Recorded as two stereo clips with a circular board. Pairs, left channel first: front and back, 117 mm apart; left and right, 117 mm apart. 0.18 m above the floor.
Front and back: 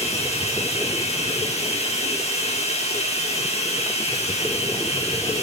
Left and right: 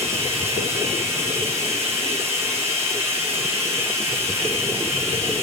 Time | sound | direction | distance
0.0 | running water | 20° right | 5.5 m